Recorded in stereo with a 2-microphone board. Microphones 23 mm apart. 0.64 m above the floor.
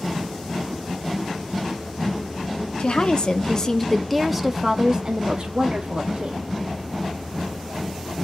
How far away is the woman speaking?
About 1.0 m.